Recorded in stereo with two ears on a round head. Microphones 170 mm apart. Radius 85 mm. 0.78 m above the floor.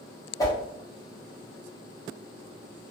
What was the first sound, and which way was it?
A whoosh, 20° left (ahead or behind).